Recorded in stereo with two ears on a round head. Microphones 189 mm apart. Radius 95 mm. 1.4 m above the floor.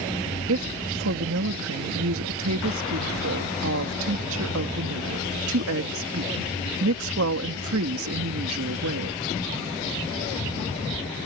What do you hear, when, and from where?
0.5 s a woman speaking: 75° right (ahead or behind)